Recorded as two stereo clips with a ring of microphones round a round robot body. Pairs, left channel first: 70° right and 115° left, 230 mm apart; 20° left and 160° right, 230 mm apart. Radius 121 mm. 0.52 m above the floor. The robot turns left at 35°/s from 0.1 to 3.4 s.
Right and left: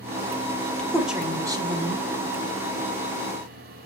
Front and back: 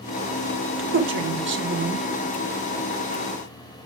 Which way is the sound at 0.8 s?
150° right.